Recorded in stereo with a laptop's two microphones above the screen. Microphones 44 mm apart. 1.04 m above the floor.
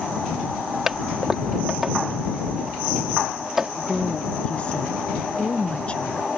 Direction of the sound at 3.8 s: 30° left (ahead or behind).